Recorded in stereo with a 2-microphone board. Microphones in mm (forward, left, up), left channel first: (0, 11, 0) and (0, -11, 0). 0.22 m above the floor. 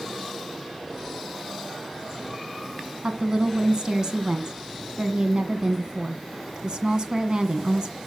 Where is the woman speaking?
35° right (ahead or behind), 1.7 m.